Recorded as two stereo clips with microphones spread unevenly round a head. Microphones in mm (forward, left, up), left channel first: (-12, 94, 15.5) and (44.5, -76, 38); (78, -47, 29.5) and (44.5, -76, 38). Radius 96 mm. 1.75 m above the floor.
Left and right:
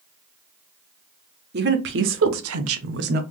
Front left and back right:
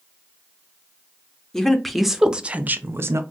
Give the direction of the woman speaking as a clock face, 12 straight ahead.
1 o'clock.